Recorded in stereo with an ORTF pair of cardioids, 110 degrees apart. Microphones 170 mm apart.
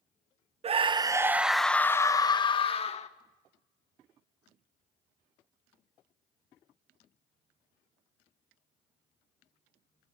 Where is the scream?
35° right, 1.1 m; by 3.1 s 40° left, 1.7 m.